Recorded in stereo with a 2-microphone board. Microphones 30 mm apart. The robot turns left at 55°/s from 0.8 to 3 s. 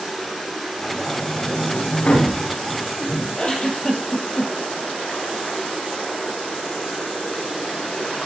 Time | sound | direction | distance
0.0 | running water | straight behind | 3.5 m
1.1 | a sliding door | 30° left (ahead or behind) | 8.5 m
3.4 | a giggle | 30° left (ahead or behind) | 3 m